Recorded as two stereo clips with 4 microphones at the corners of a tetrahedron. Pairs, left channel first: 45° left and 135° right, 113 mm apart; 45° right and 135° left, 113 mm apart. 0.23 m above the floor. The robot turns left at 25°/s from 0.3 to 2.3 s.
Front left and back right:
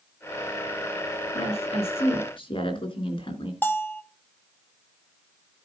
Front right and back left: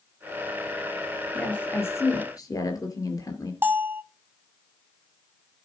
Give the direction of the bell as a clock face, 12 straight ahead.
9 o'clock.